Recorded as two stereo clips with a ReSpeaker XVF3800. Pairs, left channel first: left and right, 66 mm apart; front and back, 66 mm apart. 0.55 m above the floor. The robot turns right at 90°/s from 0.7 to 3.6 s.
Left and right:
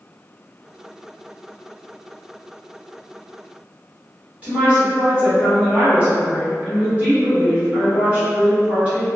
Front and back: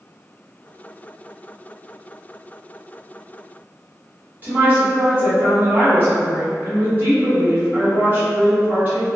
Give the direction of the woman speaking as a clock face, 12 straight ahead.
5 o'clock.